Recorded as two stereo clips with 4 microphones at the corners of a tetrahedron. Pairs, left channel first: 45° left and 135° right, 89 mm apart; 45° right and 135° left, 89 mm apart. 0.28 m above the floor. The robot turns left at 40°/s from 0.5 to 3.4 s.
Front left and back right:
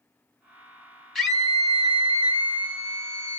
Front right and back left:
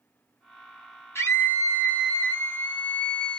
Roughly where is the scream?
Ahead right.